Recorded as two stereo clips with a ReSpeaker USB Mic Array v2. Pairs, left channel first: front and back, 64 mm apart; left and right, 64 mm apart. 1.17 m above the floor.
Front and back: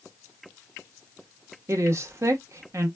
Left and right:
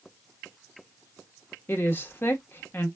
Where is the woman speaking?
145° left, 1.1 m.